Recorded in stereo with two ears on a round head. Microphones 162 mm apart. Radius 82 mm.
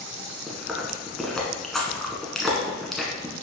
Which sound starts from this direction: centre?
Chewing, at 0.5 s.